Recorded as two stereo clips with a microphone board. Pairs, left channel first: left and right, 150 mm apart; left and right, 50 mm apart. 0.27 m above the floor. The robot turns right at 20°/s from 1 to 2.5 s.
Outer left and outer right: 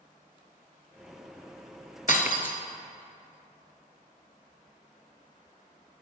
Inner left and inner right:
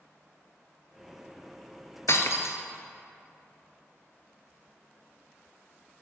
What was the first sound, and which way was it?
Breaking glass, 65° left (ahead or behind).